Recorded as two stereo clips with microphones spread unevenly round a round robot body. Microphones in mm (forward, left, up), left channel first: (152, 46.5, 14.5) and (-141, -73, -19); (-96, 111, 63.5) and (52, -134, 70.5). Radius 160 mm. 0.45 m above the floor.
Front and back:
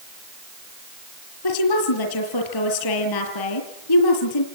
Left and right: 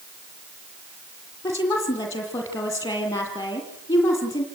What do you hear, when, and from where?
1.4 s a woman speaking: 40° left, 6.5 m